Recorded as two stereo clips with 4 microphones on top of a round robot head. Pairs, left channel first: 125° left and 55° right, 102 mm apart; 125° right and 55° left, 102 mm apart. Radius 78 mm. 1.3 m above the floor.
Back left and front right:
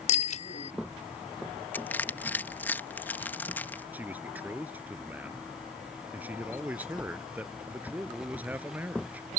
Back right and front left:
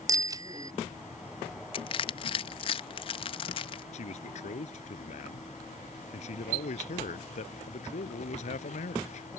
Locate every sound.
0.1 s a bicycle bell: 110° left
1.7 s crushing: 160° right
3.9 s a man speaking: 130° right